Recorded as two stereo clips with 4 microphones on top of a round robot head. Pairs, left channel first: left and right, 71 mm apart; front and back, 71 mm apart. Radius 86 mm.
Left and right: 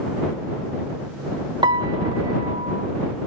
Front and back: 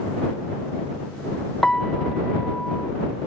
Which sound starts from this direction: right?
A piano, at 1.6 s.